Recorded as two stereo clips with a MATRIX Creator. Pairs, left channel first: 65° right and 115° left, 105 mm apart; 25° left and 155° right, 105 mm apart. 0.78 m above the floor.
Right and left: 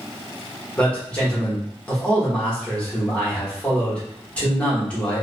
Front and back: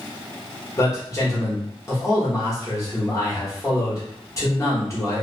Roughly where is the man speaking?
Ahead.